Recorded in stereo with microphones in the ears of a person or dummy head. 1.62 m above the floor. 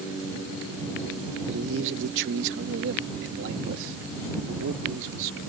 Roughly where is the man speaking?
Right.